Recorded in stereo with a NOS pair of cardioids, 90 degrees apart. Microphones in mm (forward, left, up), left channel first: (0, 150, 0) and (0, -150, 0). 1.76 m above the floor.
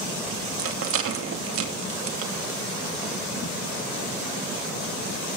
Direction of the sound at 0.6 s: 50° right.